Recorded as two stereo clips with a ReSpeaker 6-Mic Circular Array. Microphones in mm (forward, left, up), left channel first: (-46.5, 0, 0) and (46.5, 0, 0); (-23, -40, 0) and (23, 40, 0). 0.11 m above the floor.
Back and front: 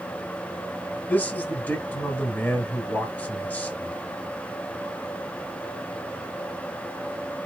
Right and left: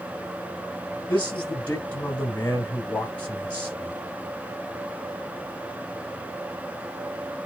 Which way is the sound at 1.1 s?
155° right.